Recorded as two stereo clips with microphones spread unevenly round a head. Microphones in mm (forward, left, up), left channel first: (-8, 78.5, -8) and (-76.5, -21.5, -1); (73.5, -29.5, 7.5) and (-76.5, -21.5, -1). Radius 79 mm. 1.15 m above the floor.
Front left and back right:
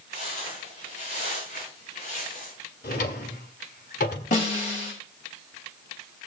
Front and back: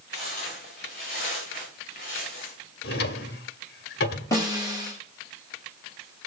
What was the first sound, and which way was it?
Footsteps, 40° left.